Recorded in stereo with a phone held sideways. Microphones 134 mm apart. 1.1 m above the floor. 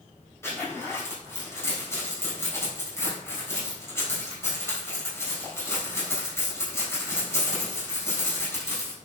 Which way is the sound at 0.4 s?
20° left (ahead or behind).